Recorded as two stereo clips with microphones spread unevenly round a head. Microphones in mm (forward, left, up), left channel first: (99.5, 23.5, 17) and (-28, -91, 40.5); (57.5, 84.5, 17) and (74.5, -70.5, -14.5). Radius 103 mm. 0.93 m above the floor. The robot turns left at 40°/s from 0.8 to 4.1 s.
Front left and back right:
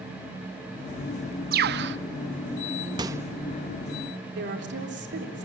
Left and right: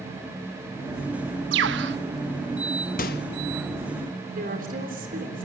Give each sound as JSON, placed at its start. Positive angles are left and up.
{"t": 1.5, "sound": "a bird", "azimuth_deg": -110, "distance_m": 0.7}
{"t": 3.0, "sound": "a microwave", "azimuth_deg": 150, "distance_m": 0.6}
{"t": 4.3, "sound": "a woman speaking", "azimuth_deg": -125, "distance_m": 3.5}